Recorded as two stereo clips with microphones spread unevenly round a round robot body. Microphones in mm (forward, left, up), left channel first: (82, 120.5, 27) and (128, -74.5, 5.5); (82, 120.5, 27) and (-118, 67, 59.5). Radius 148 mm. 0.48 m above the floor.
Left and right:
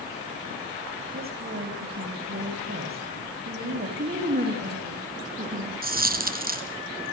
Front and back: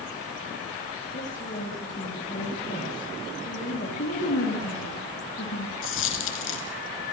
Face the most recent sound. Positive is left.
turn(degrees=-30)